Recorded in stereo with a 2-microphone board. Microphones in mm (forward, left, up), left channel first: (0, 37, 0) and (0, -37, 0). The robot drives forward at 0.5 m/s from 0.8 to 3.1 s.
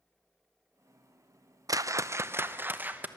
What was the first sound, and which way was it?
A whoosh, 55° right (ahead or behind).